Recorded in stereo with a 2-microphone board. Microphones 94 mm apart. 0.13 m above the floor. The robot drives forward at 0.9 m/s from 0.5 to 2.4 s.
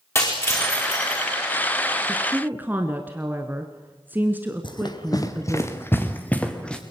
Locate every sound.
0.1 s breaking glass: 30° left (ahead or behind), 5.5 m; by 1.2 s 25° left (ahead or behind), 6 m
2.1 s a woman speaking: 15° right (ahead or behind), 1.4 m; by 5.6 s 20° right (ahead or behind), 1.3 m
4.6 s running footsteps: 50° left (ahead or behind), 1.9 m; by 6.8 s 10° left (ahead or behind), 3 m